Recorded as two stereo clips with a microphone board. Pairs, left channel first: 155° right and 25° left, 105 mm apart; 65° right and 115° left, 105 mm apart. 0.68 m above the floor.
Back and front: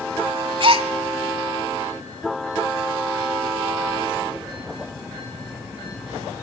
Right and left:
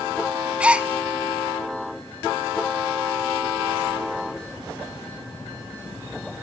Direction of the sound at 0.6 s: 35° left.